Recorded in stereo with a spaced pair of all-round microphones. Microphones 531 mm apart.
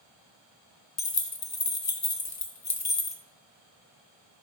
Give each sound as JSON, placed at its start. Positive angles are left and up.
{"t": 1.0, "sound": "keys jangling", "side_deg": 30, "distance_m": 0.6}